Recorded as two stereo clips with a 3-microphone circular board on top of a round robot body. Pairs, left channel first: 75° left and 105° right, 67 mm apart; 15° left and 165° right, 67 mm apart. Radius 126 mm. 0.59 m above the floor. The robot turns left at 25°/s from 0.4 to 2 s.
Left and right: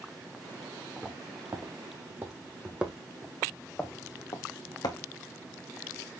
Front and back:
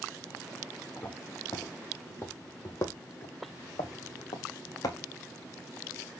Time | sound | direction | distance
1.0 | footsteps | 35° right | 2.5 m